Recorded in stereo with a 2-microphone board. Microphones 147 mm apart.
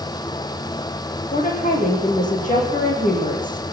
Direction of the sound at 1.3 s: 55° left (ahead or behind).